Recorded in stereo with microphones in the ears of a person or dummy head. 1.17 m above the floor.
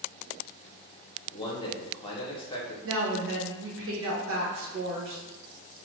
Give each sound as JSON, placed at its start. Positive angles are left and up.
{"t": 1.3, "sound": "a man speaking", "side_deg": 20, "distance_m": 0.7}
{"t": 2.8, "sound": "a woman speaking", "side_deg": -65, "distance_m": 0.9}